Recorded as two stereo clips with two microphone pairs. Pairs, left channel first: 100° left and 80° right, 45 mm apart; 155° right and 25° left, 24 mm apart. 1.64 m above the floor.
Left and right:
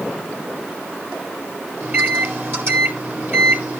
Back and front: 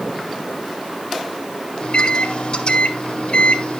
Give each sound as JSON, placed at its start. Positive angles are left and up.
{"t": 1.8, "sound": "a microwave", "azimuth_deg": -115, "distance_m": 2.0}